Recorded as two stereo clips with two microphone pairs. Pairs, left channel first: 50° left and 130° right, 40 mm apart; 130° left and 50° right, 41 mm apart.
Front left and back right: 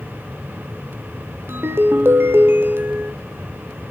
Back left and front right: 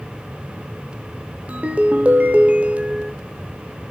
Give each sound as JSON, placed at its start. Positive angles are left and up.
{"t": 1.5, "sound": "a ringtone", "azimuth_deg": -110, "distance_m": 1.3}